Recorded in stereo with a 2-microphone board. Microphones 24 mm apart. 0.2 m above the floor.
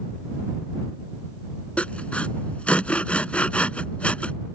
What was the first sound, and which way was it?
Sawing, 65° left (ahead or behind).